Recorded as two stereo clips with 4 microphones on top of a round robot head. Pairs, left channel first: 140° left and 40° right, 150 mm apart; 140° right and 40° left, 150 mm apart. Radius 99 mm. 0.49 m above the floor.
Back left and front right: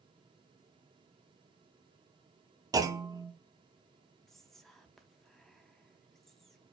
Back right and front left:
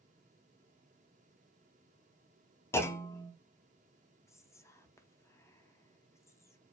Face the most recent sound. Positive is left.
turn(degrees=-135)